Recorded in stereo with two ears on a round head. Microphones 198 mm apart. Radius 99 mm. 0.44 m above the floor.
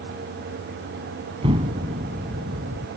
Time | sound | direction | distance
1.4 | an explosion | 25° right (ahead or behind) | ?